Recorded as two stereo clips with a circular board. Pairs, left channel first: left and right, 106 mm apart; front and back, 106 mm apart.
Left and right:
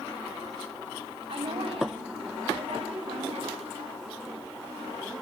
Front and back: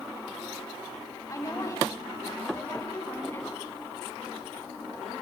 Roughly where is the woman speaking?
Ahead right.